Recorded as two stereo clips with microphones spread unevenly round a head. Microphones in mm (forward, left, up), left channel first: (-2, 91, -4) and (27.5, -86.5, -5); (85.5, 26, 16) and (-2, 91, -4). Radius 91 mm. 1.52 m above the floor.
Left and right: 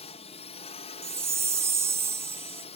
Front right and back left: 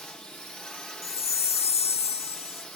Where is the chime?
5° right.